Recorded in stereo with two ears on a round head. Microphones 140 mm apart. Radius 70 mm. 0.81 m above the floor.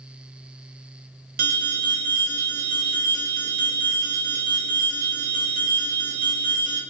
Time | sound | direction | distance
1.4 | an alarm | 60° right (ahead or behind) | 0.6 m